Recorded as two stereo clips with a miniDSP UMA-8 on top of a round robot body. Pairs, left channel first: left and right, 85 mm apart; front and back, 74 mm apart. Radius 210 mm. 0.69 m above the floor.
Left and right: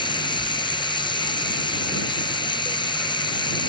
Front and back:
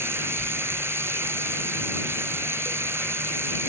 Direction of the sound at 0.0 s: 120° left.